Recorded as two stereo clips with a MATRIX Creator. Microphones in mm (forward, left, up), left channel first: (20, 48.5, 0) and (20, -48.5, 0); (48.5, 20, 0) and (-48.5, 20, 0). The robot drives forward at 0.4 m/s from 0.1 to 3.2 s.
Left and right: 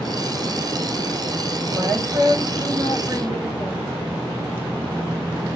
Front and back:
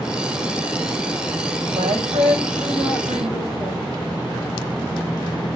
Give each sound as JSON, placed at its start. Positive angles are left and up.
{"t": 1.7, "sound": "a woman speaking", "azimuth_deg": -165, "distance_m": 6.0}